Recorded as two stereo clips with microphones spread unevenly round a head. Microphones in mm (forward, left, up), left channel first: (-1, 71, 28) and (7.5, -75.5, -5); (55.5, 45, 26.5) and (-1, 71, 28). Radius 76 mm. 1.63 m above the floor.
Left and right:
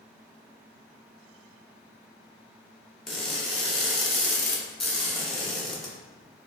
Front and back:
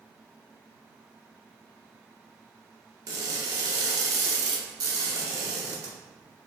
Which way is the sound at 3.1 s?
170° left.